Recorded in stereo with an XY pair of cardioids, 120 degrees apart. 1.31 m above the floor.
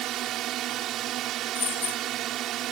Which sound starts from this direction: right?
A drone, at 0.0 s.